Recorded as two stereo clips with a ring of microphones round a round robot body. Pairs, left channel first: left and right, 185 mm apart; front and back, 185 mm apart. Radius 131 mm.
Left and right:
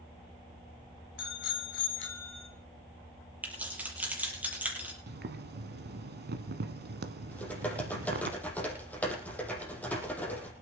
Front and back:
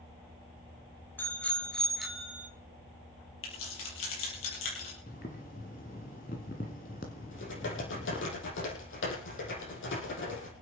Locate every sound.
1.2 s a bicycle bell: 80° left, 2.5 m; by 2.5 s 100° left, 2 m
3.4 s keys jangling: 10° right, 8 m
5.1 s boiling: 60° right, 1.6 m
7.3 s typing on a keyboard: 10° left, 6.5 m